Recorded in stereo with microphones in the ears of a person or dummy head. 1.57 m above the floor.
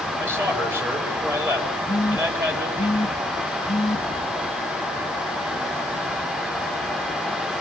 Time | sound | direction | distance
0.2 | a man speaking | 15° right (ahead or behind) | 4.5 m
1.9 | a phone buzzing | centre (ahead or behind) | 1.7 m